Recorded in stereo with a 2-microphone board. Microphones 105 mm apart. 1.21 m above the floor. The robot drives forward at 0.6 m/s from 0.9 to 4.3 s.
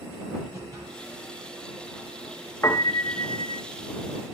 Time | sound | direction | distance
0.5 | a whoosh | 30° right (ahead or behind) | 9.5 m
2.6 | a piano | 30° left (ahead or behind) | 1.1 m